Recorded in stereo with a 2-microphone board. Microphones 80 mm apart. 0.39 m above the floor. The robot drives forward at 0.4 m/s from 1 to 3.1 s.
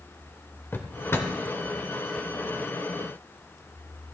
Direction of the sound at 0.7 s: 30° left (ahead or behind).